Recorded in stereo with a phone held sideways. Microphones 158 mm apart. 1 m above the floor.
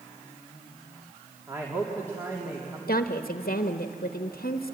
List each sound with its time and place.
1.5 s a man speaking: 15° right (ahead or behind), 2.5 m
2.9 s a woman speaking: 70° left (ahead or behind), 0.9 m